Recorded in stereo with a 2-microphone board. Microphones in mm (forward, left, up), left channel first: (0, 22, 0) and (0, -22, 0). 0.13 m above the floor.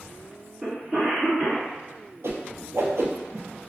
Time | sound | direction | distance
0.6 | a cough | 20° right (ahead or behind) | 1.9 m
2.2 | a whoosh | 75° right (ahead or behind) | 0.6 m